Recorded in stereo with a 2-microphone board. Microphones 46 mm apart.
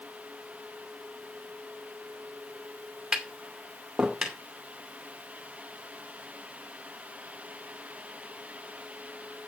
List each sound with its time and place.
3.1 s tapping: 10° right (ahead or behind), 2.5 m